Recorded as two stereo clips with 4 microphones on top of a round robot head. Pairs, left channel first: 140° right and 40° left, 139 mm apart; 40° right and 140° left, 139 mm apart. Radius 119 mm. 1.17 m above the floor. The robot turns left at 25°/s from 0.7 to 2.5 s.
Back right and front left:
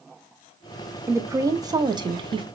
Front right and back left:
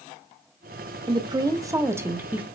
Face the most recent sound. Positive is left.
turn(degrees=65)